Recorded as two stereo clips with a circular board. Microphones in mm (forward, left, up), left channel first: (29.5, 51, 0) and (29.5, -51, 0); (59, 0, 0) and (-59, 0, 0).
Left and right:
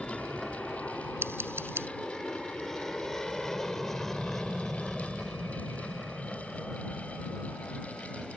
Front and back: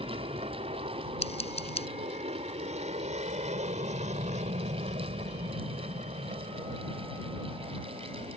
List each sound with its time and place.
0.0 s an aircraft: 175° left; by 8.4 s straight behind
1.2 s scissors: 25° right